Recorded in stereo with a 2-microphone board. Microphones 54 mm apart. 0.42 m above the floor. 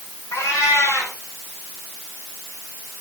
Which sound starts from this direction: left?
A cat meowing, at 0.3 s.